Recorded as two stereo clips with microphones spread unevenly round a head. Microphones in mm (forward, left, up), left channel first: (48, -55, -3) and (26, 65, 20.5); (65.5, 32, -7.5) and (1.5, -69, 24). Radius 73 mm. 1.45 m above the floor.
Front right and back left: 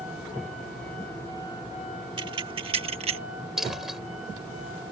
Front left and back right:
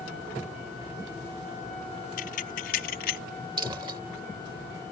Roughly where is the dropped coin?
Behind.